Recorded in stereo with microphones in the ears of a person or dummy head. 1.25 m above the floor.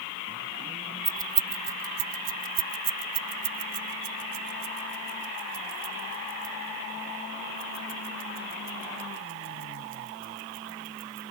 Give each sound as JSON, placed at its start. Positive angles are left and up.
{"t": 1.1, "sound": "keys jangling", "side_deg": -10}